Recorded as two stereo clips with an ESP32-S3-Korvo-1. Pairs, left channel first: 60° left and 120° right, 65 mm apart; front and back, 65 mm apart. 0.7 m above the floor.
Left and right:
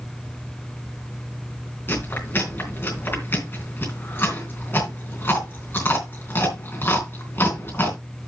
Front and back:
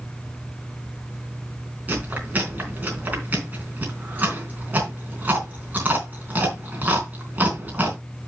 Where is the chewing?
115° left, 3.5 m.